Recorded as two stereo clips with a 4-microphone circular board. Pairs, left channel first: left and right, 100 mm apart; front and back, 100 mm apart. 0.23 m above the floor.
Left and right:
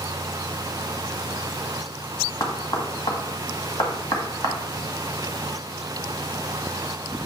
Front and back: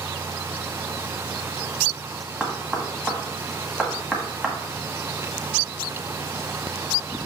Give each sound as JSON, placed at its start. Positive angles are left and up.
{"t": 2.4, "sound": "knocking", "azimuth_deg": 105, "distance_m": 1.6}